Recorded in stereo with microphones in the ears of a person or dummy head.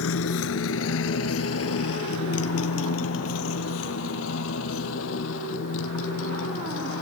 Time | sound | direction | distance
0.0 | a motorcycle | 75° left (ahead or behind) | ?